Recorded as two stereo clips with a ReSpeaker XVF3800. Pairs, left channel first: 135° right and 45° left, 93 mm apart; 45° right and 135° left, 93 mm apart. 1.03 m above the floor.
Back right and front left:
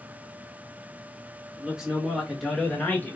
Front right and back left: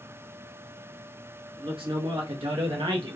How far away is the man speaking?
About 1.3 m.